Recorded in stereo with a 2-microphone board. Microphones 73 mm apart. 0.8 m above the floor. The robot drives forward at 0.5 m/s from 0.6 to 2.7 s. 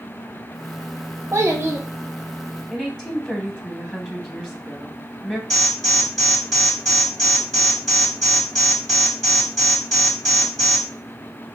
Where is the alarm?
5° left (ahead or behind), 2.0 m.